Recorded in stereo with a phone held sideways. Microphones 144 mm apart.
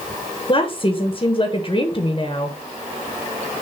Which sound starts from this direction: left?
A woman speaking, at 0.5 s.